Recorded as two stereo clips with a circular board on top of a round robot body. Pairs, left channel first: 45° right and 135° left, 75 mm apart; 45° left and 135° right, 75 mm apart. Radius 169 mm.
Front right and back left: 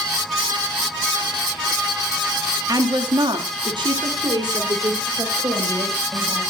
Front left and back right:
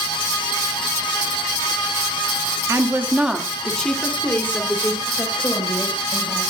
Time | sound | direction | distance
2.7 | a woman speaking | 175° left | 1.8 m